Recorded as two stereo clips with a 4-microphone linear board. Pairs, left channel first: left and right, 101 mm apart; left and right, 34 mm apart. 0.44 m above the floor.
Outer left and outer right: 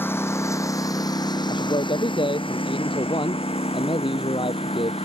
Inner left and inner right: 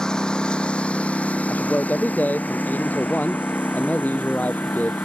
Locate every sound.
0.0 s a lawn mower: 20° left (ahead or behind); by 5.0 s 80° left
1.5 s a man speaking: 60° left (ahead or behind)